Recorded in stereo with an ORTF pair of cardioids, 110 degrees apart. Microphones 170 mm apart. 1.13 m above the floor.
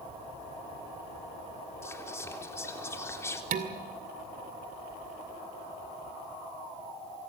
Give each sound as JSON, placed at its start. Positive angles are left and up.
{"t": 1.8, "sound": "whispering", "azimuth_deg": 15, "distance_m": 3.5}
{"t": 3.5, "sound": "dishes clattering", "azimuth_deg": -55, "distance_m": 2.0}